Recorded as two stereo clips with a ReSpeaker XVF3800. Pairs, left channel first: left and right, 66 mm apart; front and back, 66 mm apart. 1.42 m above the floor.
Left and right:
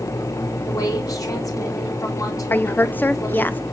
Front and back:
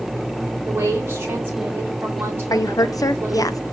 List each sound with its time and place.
0.7 s a woman speaking: 125° left, 3 m
2.5 s a woman speaking: 25° left, 0.6 m